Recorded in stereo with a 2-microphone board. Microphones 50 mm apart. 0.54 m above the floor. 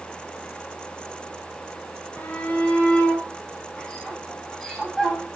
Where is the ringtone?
No ringtone in this recording.